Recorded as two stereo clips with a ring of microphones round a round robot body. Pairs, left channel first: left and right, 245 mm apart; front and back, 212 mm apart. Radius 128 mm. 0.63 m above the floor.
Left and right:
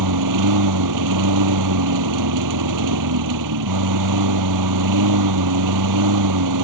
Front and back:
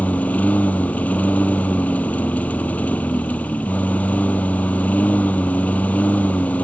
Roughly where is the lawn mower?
Right.